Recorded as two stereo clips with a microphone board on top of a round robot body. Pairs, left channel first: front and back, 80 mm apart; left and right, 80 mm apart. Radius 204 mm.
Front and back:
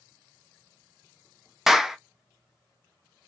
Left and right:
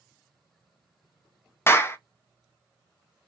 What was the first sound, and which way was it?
A clap, 100° left.